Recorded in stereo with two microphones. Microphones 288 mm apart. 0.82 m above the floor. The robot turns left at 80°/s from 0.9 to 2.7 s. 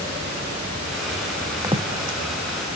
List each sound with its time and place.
1.6 s footsteps: 10° right (ahead or behind), 2.0 m; by 2.2 s 50° right (ahead or behind), 2.0 m